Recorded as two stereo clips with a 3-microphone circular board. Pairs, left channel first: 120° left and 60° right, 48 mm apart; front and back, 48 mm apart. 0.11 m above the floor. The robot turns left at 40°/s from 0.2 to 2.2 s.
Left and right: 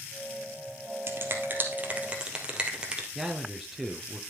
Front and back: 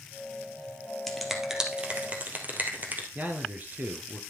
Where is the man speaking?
140° right, 2 m.